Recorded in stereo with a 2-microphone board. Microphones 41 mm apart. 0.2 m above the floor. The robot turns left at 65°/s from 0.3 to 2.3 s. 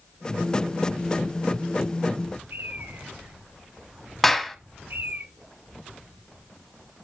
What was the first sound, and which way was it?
A bird, 75° right (ahead or behind).